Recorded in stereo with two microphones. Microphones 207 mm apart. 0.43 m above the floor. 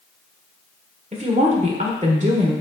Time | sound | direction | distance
1.1 | a woman speaking | 35° right (ahead or behind) | 1.6 m